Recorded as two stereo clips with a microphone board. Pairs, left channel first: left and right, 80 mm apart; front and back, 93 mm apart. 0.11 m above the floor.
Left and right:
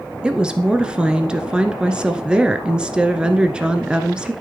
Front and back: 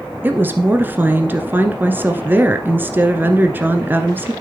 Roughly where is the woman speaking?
Behind right.